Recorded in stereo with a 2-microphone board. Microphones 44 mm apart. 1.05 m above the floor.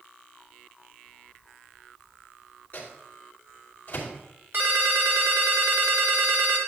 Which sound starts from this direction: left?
A microwave, at 2.7 s.